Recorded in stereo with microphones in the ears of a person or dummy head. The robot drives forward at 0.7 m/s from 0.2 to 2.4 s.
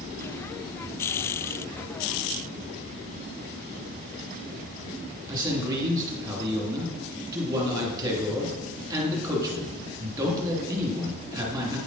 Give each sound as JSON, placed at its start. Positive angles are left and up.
{"t": 5.3, "sound": "a man speaking", "side_deg": -20, "distance_m": 2.5}